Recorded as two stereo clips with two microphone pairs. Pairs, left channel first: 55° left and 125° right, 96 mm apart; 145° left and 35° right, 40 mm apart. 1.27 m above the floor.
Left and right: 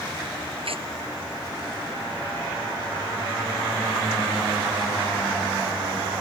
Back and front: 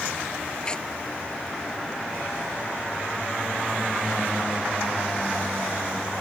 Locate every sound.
0.7 s tearing paper: 145° right